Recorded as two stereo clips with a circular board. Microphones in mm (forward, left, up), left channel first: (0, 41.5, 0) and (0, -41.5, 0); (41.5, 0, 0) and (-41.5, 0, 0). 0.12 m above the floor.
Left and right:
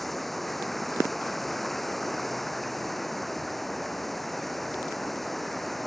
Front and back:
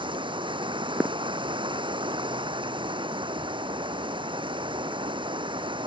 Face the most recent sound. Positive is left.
turn(degrees=180)